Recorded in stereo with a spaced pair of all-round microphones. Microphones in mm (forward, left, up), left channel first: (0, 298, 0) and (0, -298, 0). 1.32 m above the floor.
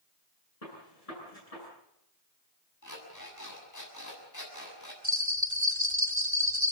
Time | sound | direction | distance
0.6 | a gunshot | 80° left | 10 m
2.8 | an alarm clock | 30° left (ahead or behind) | 7 m
5.0 | a bell | 30° right (ahead or behind) | 1.5 m